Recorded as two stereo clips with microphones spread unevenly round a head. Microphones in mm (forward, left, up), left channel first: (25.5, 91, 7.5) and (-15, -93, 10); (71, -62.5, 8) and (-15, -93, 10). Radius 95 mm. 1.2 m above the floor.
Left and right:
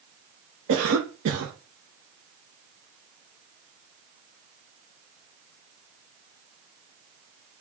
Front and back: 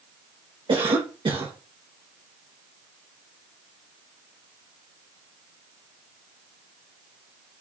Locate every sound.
0.7 s a cough: 130° right, 1.2 m